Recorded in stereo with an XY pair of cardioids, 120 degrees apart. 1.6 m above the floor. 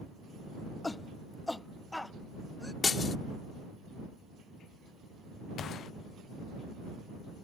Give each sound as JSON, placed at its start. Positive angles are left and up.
{"t": 0.8, "sound": "a shout", "azimuth_deg": 20}
{"t": 2.8, "sound": "breaking glass", "azimuth_deg": 35}
{"t": 5.6, "sound": "a gunshot", "azimuth_deg": 55}